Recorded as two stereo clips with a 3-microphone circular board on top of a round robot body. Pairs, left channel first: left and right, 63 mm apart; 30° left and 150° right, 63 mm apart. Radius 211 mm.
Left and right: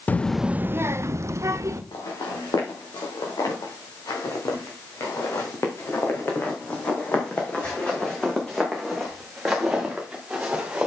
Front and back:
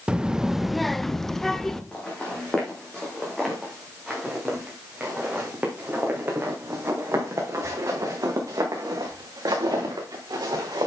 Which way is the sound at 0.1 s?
140° left.